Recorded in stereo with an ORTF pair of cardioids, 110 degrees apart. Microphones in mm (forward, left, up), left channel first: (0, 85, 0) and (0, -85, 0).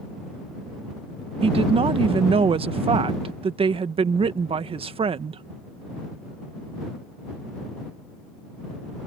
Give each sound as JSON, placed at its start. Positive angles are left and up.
{"t": 1.4, "sound": "a woman speaking", "azimuth_deg": -35}